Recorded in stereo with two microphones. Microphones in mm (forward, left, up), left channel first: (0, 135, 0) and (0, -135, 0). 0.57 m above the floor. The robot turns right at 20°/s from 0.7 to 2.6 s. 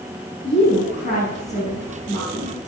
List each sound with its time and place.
0.4 s a woman speaking: 140° left, 5 m; by 2.6 s 175° left, 5 m